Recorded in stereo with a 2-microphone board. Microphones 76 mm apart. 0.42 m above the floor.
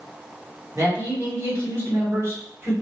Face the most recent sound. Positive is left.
turn(degrees=-35)  # may be behind; listen again after turning